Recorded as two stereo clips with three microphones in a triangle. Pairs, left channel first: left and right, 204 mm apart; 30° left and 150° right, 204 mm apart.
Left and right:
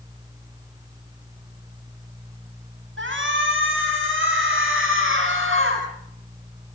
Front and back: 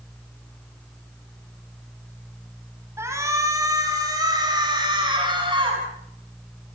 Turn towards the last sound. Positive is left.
turn(degrees=-85)